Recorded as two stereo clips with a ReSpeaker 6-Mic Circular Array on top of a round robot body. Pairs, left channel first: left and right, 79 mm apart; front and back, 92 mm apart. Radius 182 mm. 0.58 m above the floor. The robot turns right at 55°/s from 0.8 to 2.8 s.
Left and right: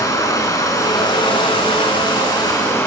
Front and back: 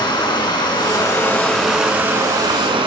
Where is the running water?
40° left, 5.5 m; by 2.9 s 150° left, 5.5 m.